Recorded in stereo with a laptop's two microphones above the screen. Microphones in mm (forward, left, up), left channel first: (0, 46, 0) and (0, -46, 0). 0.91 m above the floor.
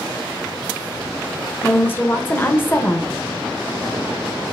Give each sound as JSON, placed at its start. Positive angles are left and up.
{"t": 1.6, "sound": "a woman speaking", "side_deg": 25, "distance_m": 0.9}